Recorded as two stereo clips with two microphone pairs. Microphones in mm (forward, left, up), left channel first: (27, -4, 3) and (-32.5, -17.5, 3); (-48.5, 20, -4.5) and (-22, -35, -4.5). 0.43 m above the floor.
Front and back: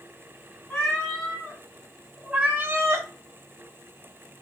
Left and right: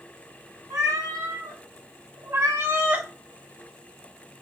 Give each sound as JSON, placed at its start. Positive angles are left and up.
{"t": 0.7, "sound": "a cat meowing", "azimuth_deg": -65, "distance_m": 1.2}